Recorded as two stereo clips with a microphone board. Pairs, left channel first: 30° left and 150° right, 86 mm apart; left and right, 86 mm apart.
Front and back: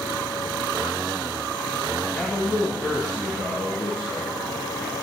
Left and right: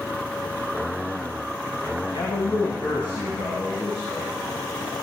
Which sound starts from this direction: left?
A man speaking, at 2.0 s.